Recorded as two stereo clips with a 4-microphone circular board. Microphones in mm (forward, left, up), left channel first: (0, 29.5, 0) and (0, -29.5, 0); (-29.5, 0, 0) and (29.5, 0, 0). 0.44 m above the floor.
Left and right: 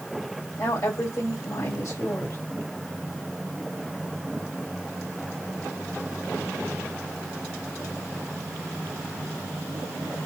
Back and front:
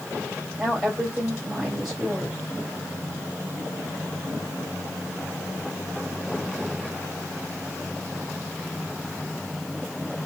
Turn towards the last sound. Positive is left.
turn(degrees=90)